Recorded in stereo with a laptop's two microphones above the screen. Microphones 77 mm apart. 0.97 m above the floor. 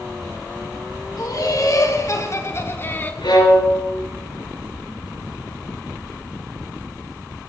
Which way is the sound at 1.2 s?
50° left (ahead or behind).